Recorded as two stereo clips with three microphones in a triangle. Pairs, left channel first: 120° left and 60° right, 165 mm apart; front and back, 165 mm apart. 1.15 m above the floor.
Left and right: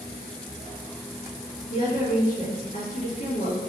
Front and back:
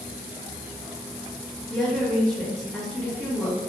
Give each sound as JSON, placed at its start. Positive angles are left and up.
{"t": 1.7, "sound": "a woman speaking", "azimuth_deg": 90, "distance_m": 1.5}